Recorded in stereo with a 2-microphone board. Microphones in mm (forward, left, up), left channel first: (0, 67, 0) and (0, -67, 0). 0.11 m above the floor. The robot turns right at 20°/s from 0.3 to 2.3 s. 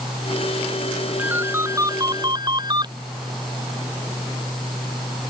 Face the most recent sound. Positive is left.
turn(degrees=-35)  # may be behind; listen again after turning